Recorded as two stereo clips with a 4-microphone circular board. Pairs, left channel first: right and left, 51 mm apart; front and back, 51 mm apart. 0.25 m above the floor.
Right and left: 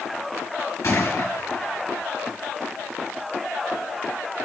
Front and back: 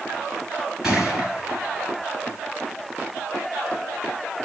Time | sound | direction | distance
0.8 | a gunshot | 100° right | 5 m